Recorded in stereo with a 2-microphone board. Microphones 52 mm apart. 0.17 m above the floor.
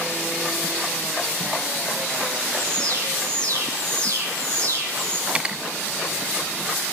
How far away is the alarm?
About 8 m.